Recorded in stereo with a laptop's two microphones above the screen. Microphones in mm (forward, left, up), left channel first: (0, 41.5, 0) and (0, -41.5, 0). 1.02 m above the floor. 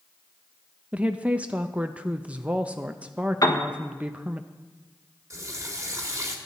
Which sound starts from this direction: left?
A piano, at 3.4 s.